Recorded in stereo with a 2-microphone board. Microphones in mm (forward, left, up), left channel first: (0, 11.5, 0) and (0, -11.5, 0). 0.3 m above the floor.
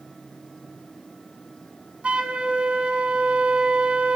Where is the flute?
55° right (ahead or behind), 1.4 m.